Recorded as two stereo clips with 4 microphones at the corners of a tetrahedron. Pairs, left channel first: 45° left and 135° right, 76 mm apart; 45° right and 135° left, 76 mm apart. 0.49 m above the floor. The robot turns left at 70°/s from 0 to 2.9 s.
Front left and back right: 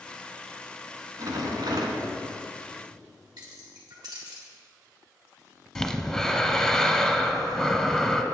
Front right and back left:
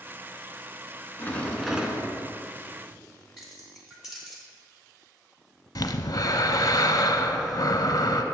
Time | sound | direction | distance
1.2 | a rattle | 105° right | 1.0 m
3.4 | keys jangling | 140° right | 2 m
5.8 | breathing | 40° right | 0.5 m